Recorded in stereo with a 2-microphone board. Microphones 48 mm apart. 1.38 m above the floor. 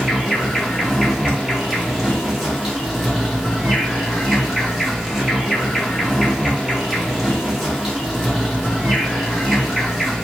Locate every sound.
0.0 s an insect: 5° right (ahead or behind), 1.0 m